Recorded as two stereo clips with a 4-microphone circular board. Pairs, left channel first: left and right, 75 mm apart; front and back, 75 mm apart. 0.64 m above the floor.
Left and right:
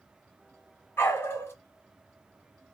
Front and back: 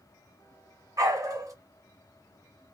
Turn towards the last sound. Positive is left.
turn(degrees=145)